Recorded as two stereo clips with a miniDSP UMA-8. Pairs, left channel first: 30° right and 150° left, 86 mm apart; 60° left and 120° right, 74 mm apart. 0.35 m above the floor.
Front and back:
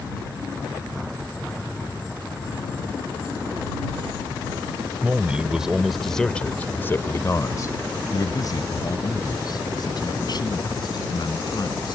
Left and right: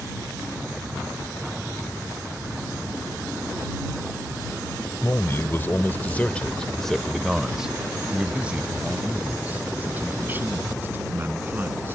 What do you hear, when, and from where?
5.0 s a man speaking: 90° left; by 11.9 s 60° right